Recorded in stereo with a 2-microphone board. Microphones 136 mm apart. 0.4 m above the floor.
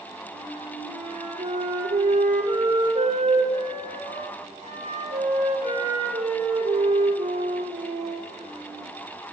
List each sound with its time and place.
0.3 s a flute: 80° right, 5.5 m